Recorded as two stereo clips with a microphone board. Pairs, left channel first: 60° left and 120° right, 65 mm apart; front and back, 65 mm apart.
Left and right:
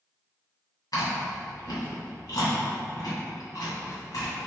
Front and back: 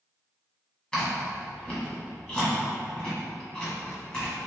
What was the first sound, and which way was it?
Chewing, 75° left.